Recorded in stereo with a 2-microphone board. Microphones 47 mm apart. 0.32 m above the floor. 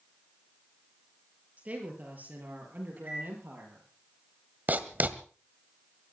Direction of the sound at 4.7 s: 40° right (ahead or behind).